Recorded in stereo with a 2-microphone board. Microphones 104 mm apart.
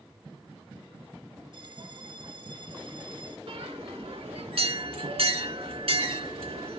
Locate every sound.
1.5 s a bell: 50° right (ahead or behind), 0.8 m
3.5 s a bell: 65° right (ahead or behind), 2 m